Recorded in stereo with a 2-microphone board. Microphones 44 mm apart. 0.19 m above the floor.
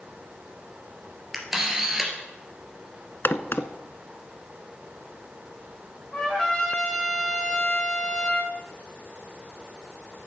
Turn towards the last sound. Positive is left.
turn(degrees=20)  # may be behind; listen again after turning